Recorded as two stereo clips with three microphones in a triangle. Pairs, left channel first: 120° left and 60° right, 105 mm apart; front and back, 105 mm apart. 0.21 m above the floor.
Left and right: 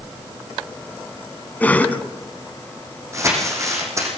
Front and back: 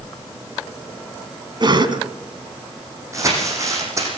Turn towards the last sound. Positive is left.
turn(degrees=-120)